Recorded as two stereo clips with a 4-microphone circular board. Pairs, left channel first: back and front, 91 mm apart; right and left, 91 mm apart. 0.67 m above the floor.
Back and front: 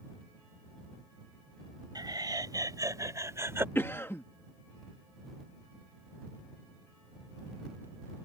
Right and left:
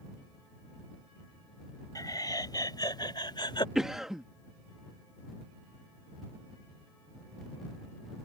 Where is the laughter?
40° right; by 3.6 s 60° right.